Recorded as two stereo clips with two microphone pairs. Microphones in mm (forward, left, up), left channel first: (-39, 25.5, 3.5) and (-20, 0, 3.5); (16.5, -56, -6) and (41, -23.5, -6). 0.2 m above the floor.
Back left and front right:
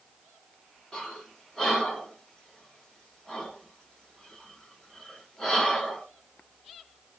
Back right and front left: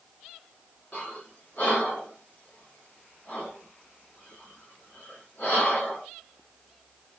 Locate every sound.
0.9 s breathing: 160° right, 1.3 m